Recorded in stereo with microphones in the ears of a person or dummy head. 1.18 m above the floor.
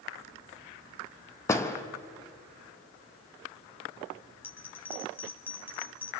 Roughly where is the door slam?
Centre.